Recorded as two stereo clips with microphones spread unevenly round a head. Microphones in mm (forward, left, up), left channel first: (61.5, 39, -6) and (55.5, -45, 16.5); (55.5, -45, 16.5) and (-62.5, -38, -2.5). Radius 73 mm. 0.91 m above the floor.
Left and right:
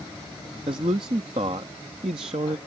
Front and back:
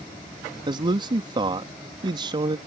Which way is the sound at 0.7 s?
145° right.